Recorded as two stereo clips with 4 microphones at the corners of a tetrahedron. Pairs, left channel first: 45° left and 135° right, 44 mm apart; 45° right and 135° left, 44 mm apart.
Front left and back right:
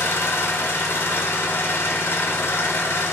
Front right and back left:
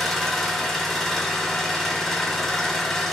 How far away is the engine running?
About 0.9 m.